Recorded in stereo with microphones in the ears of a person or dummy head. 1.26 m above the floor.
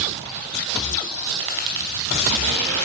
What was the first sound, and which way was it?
Tapping, 65° right (ahead or behind).